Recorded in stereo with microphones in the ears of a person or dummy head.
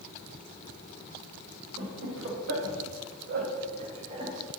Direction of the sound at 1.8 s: 60° right (ahead or behind).